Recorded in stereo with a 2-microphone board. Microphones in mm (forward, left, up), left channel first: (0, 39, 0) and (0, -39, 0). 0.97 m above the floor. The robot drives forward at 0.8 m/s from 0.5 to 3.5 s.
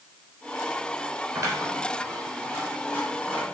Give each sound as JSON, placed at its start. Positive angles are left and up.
{"t": 1.4, "sound": "scissors", "side_deg": -35, "distance_m": 3.5}